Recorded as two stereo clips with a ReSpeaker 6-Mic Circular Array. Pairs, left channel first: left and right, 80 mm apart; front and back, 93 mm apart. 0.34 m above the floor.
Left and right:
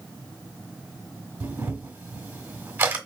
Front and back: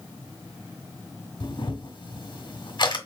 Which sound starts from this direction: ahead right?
A camera shutter, at 1.4 s.